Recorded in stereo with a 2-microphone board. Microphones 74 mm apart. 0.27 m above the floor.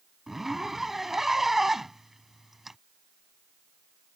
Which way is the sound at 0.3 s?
5° right (ahead or behind).